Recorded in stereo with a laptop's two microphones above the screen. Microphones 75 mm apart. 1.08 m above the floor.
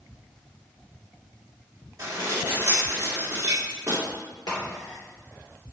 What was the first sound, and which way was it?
Dishes clattering, 40° right (ahead or behind).